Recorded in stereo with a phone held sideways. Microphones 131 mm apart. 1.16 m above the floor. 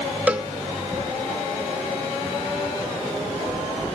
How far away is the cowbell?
About 0.5 m.